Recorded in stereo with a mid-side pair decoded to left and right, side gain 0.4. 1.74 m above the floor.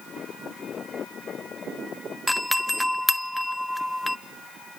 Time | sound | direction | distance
2.3 | a doorbell | 10° left | 0.9 m